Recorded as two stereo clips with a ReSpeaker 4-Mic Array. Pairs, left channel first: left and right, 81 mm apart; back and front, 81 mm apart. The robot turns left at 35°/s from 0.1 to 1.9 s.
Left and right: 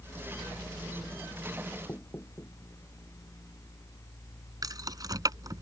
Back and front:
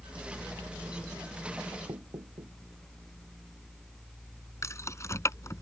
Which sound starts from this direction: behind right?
Keys jangling, at 4.6 s.